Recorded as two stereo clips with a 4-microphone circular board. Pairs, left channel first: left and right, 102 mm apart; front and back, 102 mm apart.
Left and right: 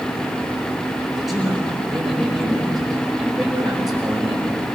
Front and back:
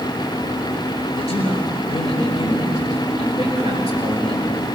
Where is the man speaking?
5° right, 5 m.